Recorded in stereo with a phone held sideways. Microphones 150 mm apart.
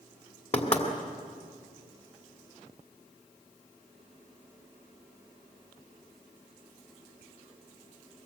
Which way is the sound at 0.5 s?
45° left (ahead or behind).